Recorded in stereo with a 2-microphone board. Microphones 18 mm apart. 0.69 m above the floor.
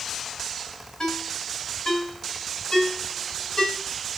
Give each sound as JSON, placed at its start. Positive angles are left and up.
{"t": 1.0, "sound": "a ringtone", "side_deg": 40, "distance_m": 3.0}